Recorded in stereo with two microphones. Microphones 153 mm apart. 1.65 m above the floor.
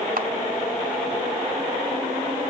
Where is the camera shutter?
65° right (ahead or behind), 2 m.